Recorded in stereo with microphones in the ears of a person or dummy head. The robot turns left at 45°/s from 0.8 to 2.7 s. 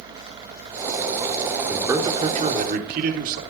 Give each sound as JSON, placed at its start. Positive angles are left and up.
{"t": 1.7, "sound": "a man speaking", "azimuth_deg": -5, "distance_m": 3.5}